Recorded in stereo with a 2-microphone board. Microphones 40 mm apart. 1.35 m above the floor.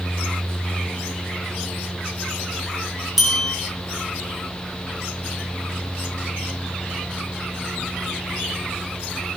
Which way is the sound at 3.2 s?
5° right (ahead or behind).